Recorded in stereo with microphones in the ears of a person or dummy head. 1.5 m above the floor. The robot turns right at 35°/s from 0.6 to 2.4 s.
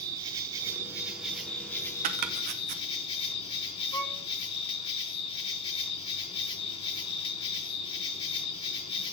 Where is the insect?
30° right, 1.1 m; by 9.2 s 35° left, 1.1 m.